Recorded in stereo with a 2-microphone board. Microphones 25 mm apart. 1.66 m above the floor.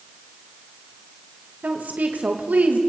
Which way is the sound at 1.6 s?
85° right.